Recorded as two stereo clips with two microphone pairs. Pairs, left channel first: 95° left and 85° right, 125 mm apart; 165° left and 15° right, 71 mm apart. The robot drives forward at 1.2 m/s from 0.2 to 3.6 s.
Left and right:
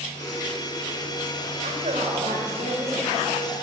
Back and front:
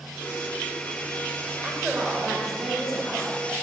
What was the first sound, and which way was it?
A woman speaking, 85° right.